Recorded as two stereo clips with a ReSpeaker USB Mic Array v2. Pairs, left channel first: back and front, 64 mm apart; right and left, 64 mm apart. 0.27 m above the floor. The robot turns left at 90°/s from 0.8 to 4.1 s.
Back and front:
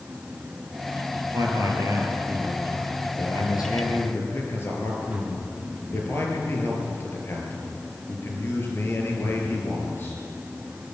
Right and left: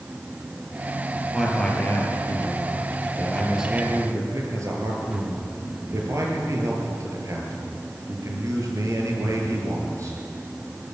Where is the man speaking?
15° left, 6 m; by 10.2 s 125° left, 6 m.